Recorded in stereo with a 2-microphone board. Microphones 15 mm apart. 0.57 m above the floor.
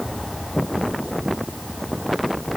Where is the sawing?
No sawing in this recording.